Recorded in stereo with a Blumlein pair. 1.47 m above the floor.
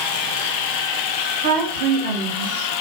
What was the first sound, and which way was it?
A woman speaking, 60° right.